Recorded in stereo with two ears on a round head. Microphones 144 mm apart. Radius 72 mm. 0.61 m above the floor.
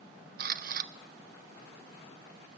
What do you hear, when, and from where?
0.4 s a camera shutter: 55° right (ahead or behind), 0.5 m